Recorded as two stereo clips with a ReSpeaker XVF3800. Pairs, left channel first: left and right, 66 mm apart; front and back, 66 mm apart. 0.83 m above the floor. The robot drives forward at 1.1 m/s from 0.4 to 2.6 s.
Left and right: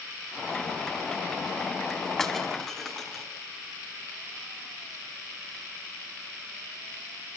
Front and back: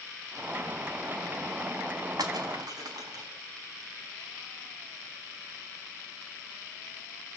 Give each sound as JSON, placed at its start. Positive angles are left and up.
{"t": 2.2, "sound": "breaking glass", "azimuth_deg": 175, "distance_m": 4.5}